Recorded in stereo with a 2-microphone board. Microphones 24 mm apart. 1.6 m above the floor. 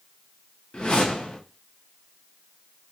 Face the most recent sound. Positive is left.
turn(degrees=50)  # may be behind; listen again after turning